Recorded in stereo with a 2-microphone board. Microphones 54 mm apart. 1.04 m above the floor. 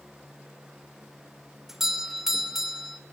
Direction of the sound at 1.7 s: 5° right (ahead or behind).